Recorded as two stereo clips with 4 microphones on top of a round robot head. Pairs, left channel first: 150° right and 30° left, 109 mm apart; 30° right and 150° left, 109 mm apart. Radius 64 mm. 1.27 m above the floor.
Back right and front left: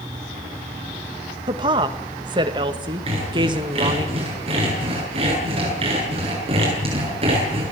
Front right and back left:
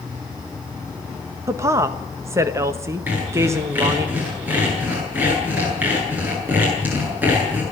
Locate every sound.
1.5 s a woman speaking: 85° left, 1.5 m
3.1 s sawing: 75° left, 8.5 m